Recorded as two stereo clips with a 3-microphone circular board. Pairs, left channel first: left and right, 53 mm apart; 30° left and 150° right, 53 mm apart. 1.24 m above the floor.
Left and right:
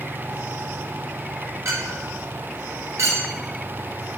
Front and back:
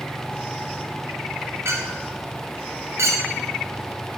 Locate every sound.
1.6 s a clink: 115° right, 1.7 m